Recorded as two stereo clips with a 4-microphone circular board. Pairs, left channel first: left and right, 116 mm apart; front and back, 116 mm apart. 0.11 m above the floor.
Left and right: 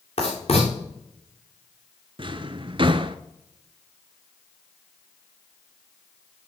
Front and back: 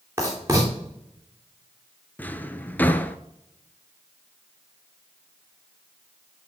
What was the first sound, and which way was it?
Writing, 115° left.